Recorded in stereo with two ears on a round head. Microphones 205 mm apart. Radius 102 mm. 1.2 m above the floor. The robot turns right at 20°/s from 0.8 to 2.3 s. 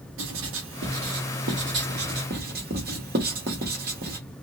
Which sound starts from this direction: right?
Writing, at 0.2 s.